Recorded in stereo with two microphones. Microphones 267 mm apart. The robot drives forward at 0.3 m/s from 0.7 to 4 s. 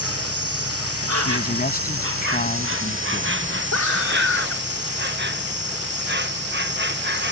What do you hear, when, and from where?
0.0 s an insect: 60° right (ahead or behind); by 7.3 s 40° right (ahead or behind)
1.2 s a man speaking: 35° left (ahead or behind); by 3.4 s 30° left (ahead or behind)
3.7 s a scream: 80° left